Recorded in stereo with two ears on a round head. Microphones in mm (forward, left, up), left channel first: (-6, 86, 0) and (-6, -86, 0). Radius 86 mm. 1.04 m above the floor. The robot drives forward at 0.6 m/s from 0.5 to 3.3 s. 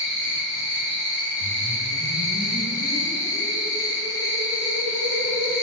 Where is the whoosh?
5° right (ahead or behind), 1.9 m.